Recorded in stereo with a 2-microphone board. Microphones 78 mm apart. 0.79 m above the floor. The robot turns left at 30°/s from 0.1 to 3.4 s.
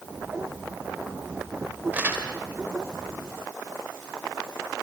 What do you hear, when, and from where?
1.9 s crumpling: 20° right (ahead or behind), 3 m; by 2.3 s 30° right (ahead or behind), 3 m